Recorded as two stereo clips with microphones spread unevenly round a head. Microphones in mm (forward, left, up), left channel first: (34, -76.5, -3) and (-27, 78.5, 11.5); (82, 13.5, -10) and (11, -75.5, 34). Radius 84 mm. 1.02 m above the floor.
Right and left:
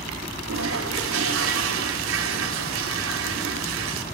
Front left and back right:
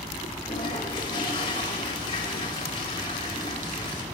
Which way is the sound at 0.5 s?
110° left.